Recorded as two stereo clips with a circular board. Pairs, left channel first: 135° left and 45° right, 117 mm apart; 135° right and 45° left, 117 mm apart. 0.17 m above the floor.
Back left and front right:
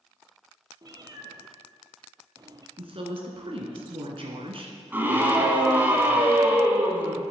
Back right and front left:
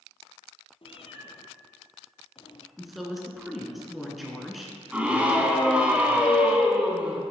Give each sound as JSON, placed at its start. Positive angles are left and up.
{"t": 0.8, "sound": "a cat meowing", "azimuth_deg": -100, "distance_m": 0.8}
{"t": 2.8, "sound": "a woman speaking", "azimuth_deg": -45, "distance_m": 1.7}
{"t": 4.9, "sound": "a scream", "azimuth_deg": -10, "distance_m": 1.2}